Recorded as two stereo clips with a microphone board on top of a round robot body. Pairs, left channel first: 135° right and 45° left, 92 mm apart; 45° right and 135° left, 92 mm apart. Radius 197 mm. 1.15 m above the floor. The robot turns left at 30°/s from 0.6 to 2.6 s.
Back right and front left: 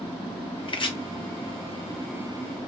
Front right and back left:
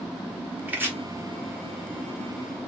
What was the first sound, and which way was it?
Chopping, 155° right.